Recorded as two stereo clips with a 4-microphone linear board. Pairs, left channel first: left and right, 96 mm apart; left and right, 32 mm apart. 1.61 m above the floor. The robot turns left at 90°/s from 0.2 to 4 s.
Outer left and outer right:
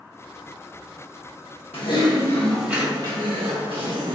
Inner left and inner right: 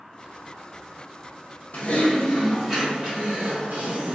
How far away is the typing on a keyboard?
About 1.2 m.